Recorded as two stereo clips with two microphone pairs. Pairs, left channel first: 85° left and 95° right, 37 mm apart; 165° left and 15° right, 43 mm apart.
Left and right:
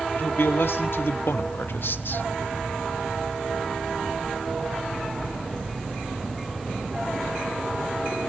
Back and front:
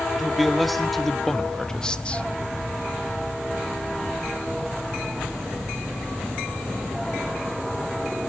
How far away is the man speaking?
About 2 m.